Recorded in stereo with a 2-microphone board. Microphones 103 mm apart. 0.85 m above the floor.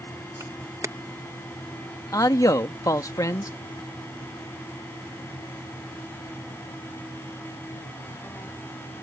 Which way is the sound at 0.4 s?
30° right (ahead or behind).